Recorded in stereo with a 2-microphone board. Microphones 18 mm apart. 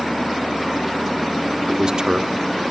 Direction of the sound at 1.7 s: 50° right (ahead or behind).